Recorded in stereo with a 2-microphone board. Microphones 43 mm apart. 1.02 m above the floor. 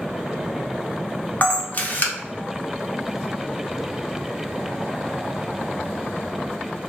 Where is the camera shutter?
40° left (ahead or behind), 0.7 m.